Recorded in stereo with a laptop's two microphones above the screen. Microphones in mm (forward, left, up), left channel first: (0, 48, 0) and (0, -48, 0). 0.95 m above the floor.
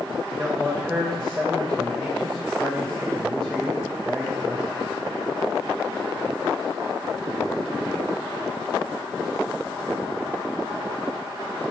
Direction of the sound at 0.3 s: 5° left (ahead or behind).